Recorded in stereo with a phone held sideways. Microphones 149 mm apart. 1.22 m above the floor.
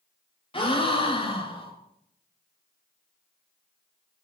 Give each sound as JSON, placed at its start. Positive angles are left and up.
{"t": 0.5, "sound": "a gasp", "side_deg": 35, "distance_m": 2.5}